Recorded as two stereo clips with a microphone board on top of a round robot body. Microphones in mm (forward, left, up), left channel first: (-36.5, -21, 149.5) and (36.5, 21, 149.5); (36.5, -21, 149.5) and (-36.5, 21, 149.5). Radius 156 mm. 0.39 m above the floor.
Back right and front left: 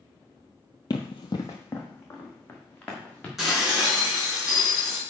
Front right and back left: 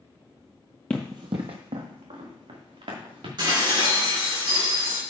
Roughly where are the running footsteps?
Right.